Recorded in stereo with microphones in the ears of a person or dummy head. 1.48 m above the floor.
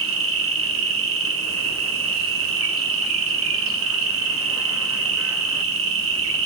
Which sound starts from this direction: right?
An insect, at 0.0 s.